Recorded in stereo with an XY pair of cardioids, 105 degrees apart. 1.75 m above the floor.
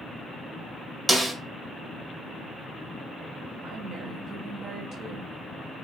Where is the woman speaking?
65° right, 1.6 m.